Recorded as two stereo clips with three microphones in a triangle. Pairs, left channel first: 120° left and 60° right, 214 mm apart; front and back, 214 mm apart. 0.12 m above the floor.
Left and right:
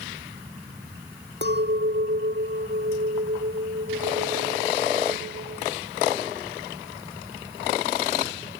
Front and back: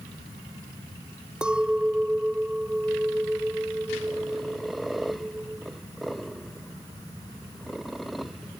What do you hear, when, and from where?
1.4 s a clink: 95° right